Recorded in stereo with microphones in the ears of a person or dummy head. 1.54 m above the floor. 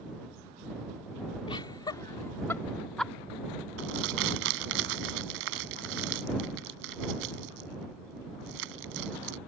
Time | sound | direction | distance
1.5 | laughter | 25° left (ahead or behind) | ?
3.8 | crumpling | 70° right (ahead or behind) | ?